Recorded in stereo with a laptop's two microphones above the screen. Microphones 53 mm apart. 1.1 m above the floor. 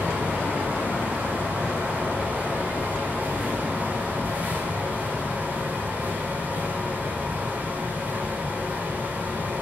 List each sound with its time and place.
0.0 s a fan: 30° right (ahead or behind), 6 m